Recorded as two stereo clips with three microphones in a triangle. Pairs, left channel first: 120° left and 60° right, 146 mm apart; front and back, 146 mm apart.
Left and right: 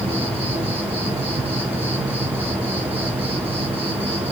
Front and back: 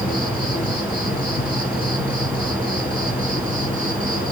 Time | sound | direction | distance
0.0 | an insect | 10° right | 3.5 m